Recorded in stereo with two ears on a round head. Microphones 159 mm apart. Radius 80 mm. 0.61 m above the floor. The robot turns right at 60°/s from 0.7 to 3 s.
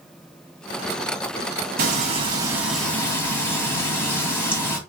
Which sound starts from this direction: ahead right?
Frying, at 1.8 s.